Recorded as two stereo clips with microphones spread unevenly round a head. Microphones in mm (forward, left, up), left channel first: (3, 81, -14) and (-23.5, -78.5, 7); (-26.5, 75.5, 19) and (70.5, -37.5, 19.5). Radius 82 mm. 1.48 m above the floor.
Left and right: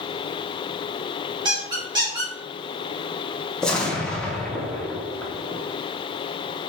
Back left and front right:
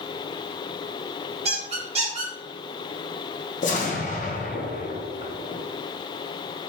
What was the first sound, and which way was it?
A squeak, 70° right.